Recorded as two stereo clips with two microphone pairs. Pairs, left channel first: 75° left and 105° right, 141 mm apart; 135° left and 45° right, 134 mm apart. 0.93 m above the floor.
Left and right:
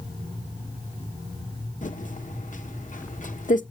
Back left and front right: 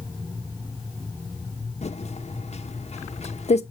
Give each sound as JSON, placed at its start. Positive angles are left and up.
{"t": 1.8, "sound": "typing on a keyboard", "azimuth_deg": 100, "distance_m": 1.1}